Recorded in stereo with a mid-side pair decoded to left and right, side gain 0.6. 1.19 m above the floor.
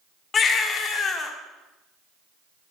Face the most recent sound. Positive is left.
turn(degrees=40)